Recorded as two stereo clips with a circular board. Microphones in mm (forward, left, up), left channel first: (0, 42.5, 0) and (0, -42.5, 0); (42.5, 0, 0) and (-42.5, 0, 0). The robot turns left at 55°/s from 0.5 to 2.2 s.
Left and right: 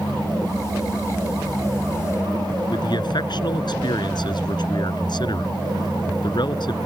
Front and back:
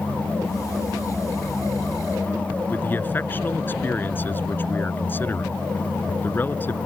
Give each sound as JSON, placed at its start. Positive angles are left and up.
{"t": 2.7, "sound": "a man speaking", "azimuth_deg": 65}